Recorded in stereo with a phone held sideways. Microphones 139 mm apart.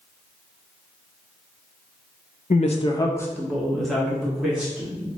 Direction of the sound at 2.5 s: 65° left (ahead or behind).